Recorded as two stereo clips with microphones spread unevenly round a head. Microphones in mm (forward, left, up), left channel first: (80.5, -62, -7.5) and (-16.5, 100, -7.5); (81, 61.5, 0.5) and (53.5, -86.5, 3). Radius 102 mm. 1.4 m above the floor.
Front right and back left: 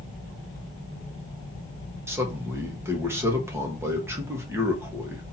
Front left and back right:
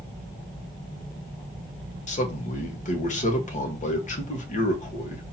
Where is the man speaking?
45° left, 1.6 m.